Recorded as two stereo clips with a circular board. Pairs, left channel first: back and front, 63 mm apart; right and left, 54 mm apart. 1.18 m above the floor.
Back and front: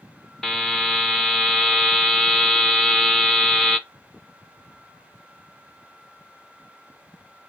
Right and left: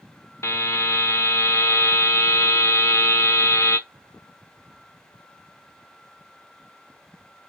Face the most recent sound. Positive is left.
turn(degrees=-100)